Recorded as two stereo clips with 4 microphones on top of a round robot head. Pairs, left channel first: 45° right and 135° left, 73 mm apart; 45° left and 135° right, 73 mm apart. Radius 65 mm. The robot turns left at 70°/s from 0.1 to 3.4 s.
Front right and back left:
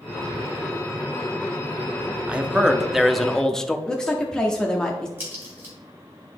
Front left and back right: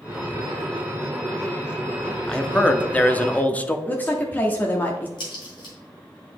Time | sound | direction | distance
2.3 | a man speaking | 100° left | 0.7 m
3.9 | a woman speaking | 25° left | 0.9 m
5.2 | a crack | 70° left | 2.5 m